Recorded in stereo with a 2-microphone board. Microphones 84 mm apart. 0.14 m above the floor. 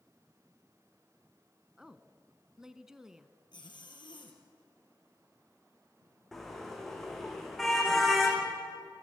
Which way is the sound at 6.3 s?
5° left (ahead or behind).